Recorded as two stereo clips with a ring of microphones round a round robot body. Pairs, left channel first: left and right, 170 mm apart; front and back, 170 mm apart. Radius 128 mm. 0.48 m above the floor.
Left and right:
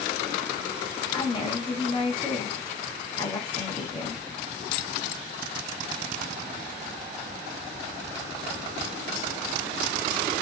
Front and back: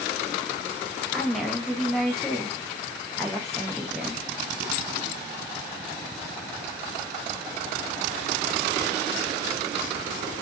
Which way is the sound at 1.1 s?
85° left.